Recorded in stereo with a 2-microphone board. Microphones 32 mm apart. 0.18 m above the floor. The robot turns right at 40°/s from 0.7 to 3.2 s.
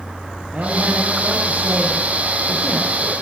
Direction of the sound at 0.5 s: 100° right.